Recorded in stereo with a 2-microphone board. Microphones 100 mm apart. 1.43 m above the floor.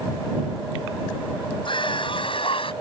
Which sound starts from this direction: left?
A scream, at 1.6 s.